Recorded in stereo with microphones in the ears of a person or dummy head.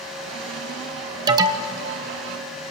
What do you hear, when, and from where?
0.0 s a fan: centre (ahead or behind), 5.5 m
1.3 s an alarm: 20° right (ahead or behind), 1.2 m